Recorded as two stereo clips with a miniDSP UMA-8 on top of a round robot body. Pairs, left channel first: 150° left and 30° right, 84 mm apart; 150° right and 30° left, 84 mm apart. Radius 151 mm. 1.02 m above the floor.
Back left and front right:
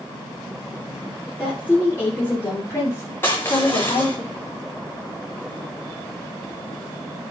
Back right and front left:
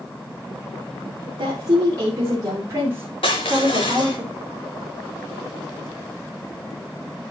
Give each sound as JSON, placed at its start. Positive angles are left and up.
{"t": 1.4, "sound": "a woman speaking", "azimuth_deg": 75, "distance_m": 3.0}
{"t": 3.2, "sound": "crushing", "azimuth_deg": -150, "distance_m": 0.8}